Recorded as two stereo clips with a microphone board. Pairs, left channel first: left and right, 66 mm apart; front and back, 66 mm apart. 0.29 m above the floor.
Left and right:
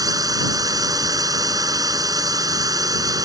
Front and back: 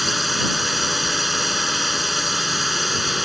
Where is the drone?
90° right.